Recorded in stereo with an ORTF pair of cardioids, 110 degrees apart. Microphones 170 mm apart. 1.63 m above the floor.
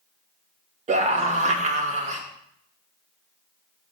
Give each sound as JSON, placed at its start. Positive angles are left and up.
{"t": 0.9, "sound": "a scream", "azimuth_deg": -40, "distance_m": 2.0}